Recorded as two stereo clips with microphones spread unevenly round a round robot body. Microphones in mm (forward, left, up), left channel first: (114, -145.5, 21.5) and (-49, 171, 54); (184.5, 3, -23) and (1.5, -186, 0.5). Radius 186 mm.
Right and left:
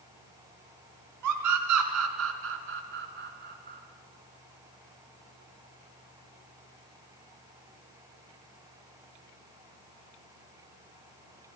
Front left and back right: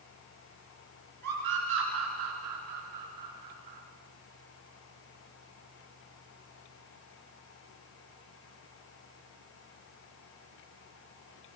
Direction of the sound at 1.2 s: 160° left.